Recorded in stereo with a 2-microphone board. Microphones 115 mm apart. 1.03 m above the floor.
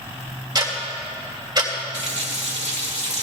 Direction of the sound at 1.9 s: 80° right.